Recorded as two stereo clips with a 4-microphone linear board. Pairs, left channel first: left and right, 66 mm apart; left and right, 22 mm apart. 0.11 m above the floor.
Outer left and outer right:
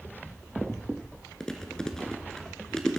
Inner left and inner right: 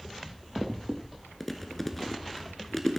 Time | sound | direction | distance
1.4 | chewing | 10° left (ahead or behind) | 0.9 m